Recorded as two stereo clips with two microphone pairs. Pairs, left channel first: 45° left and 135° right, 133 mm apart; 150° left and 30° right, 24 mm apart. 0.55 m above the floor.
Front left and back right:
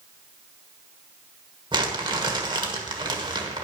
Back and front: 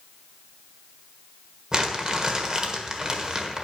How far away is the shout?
I don't hear a shout.